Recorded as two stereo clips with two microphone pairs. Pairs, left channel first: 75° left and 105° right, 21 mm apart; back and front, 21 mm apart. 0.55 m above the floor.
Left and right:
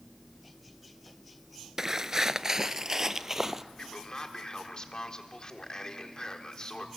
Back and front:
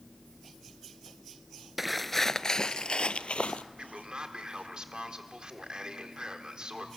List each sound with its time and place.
1.8 s footsteps: 70° right, 0.5 m; by 3.6 s 170° right, 1.0 m
3.8 s a man speaking: 35° left, 1.3 m